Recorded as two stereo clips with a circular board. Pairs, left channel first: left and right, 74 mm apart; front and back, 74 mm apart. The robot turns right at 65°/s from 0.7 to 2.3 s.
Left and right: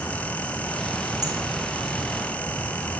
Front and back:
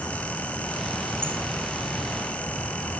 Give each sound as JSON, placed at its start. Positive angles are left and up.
{"t": 1.2, "sound": "a bird", "azimuth_deg": -120, "distance_m": 4.5}